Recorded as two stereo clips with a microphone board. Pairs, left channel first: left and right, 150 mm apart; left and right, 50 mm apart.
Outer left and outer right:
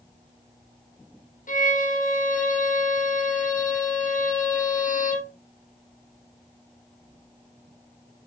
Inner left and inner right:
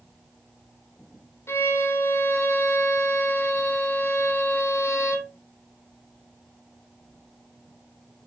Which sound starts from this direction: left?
A violin, at 1.5 s.